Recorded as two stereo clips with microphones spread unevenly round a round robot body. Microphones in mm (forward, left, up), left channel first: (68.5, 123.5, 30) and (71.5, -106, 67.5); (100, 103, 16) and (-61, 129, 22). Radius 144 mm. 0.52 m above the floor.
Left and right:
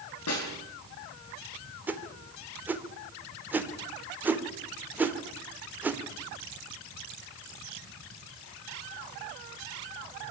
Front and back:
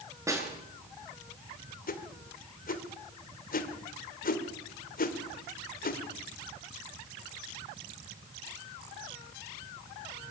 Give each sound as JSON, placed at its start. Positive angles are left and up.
{"t": 0.3, "sound": "a snare drum", "azimuth_deg": 100, "distance_m": 7.5}
{"t": 1.9, "sound": "a whoosh", "azimuth_deg": 0, "distance_m": 2.0}